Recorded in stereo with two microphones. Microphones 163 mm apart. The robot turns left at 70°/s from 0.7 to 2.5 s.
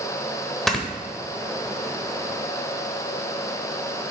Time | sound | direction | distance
0.7 | snoring | centre (ahead or behind) | 1.2 m